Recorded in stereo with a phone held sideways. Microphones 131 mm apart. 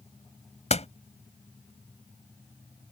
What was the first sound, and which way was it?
A door slam, 55° left (ahead or behind).